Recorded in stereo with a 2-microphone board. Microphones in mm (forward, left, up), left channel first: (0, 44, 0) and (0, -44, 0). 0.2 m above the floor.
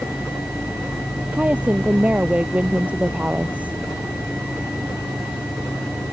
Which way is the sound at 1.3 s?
15° right (ahead or behind).